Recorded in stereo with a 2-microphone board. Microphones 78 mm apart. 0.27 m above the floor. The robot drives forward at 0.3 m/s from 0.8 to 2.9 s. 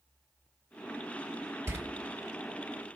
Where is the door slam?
35° right (ahead or behind), 1.0 m.